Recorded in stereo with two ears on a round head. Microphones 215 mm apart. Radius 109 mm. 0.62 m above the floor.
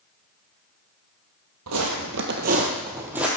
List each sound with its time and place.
1.7 s footsteps: 65° right (ahead or behind), 1.3 m; by 3.3 s 5° right (ahead or behind), 1.3 m